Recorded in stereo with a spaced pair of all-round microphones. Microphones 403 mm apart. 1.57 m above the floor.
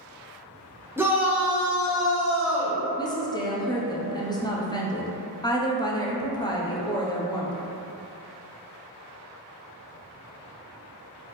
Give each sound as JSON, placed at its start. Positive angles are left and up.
{"t": 1.0, "sound": "a shout", "side_deg": -5, "distance_m": 0.5}
{"t": 3.0, "sound": "a woman speaking", "side_deg": 10, "distance_m": 0.6}